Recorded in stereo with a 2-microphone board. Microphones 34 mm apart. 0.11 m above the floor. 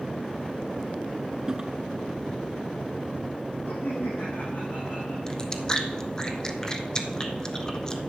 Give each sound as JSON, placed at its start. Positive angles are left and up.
{"t": 1.5, "sound": "a toilet flushing", "side_deg": -20, "distance_m": 0.7}
{"t": 3.6, "sound": "laughter", "side_deg": 80, "distance_m": 6.5}
{"t": 5.3, "sound": "chewing", "side_deg": 20, "distance_m": 0.8}